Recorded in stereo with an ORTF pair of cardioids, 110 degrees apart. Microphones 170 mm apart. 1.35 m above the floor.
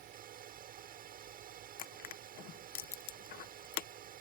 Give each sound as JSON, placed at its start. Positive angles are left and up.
{"t": 0.0, "sound": "a fan", "azimuth_deg": -60}
{"t": 1.8, "sound": "crushing", "azimuth_deg": 60}